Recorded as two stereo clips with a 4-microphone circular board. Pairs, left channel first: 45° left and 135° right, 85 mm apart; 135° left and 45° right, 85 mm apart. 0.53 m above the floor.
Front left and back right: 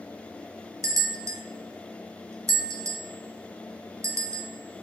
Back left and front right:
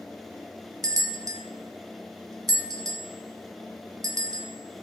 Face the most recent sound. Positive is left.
turn(degrees=-85)